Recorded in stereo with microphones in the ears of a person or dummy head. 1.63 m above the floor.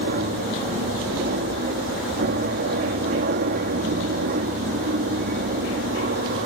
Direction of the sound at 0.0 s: 55° right (ahead or behind).